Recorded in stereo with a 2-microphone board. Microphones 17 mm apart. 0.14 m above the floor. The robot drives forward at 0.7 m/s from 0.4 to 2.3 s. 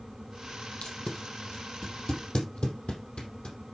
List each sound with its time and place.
0.8 s tape being pulled: 75° left (ahead or behind), 3.5 m; by 3.5 s 60° left (ahead or behind), 3.5 m